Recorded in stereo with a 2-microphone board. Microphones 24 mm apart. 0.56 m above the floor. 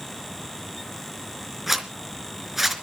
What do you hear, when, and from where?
1.7 s a zipper: 15° right (ahead or behind), 3.5 m